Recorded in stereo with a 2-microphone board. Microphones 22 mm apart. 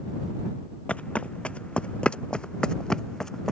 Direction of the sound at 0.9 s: 70° left (ahead or behind).